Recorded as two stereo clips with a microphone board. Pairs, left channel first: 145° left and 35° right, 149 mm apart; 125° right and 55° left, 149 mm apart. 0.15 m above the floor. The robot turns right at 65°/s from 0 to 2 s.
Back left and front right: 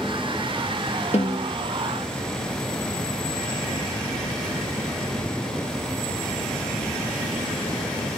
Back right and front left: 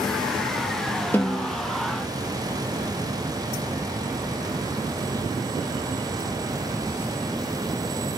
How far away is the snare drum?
About 1.4 m.